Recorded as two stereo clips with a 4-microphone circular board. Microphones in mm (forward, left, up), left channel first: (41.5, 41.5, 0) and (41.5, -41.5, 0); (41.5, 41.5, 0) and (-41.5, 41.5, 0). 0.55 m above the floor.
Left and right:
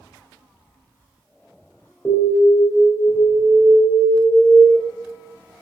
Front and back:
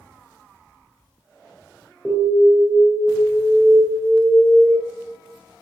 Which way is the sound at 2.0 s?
85° left.